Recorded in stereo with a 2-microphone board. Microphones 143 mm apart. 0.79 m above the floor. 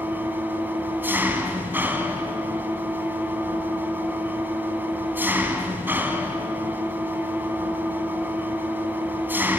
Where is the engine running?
15° right (ahead or behind), 2 m.